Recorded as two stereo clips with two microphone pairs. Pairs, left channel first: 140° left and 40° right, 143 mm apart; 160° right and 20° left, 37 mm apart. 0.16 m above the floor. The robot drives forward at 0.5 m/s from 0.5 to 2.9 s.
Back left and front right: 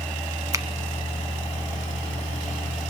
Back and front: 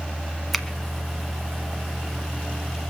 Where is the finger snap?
75° right, 1.2 m; by 0.7 s 80° right, 1.2 m.